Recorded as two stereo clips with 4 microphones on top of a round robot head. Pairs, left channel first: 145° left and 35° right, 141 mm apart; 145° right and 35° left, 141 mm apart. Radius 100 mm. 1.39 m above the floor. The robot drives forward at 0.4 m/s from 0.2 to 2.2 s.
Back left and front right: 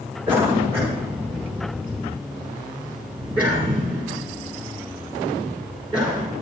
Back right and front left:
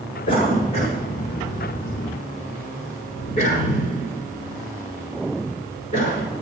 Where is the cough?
110° right, 6 m; by 6.3 s 120° right, 6.5 m.